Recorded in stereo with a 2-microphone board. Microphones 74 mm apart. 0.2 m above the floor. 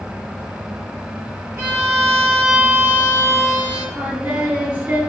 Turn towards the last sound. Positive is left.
turn(degrees=-25)  # may be behind; listen again after turning